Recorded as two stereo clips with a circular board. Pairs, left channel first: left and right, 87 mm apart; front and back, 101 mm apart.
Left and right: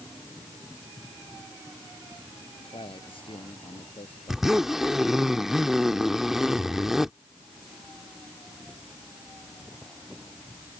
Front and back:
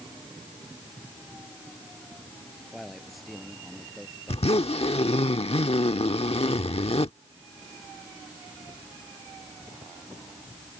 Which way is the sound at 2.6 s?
90° left.